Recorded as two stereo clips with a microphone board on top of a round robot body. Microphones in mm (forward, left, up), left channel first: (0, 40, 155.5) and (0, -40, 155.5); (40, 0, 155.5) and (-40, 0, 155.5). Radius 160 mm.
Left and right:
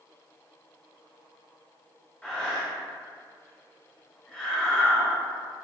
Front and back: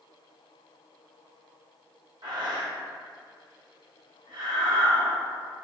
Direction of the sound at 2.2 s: 165° left.